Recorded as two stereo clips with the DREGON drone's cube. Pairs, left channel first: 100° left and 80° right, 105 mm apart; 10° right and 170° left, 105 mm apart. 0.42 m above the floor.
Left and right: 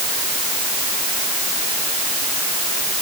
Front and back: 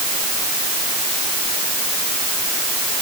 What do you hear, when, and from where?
Only background noise.